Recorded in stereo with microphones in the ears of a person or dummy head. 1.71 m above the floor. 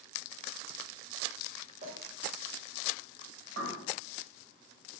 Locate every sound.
1.8 s a clink: 45° right (ahead or behind), 1.2 m
3.6 s a bird: 60° right (ahead or behind), 0.7 m